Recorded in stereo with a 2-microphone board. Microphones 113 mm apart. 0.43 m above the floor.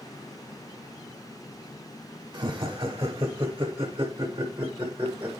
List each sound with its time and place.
2.3 s laughter: 35° right (ahead or behind), 1.5 m; by 5.3 s 15° right (ahead or behind), 2.0 m